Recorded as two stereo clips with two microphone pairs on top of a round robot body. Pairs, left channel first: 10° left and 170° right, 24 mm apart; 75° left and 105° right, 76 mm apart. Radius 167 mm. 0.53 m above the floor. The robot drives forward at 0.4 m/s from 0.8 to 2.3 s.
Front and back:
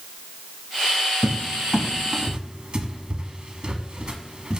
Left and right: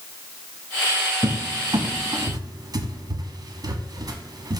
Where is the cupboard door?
90° right, 0.6 m; by 4.6 s 130° right, 0.8 m.